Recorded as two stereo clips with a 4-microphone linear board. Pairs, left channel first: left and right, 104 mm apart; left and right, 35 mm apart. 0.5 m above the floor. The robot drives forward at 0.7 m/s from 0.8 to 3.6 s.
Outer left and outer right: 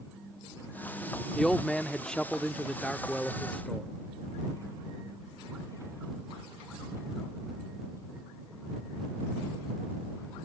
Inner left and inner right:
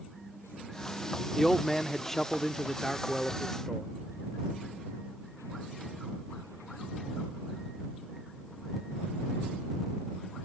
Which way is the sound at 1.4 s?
5° left (ahead or behind).